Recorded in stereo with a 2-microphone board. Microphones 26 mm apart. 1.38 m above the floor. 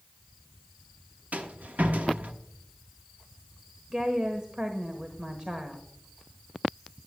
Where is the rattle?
75° right (ahead or behind), 1.1 m.